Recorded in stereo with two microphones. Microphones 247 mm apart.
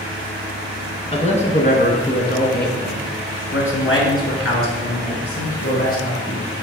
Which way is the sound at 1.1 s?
25° left (ahead or behind).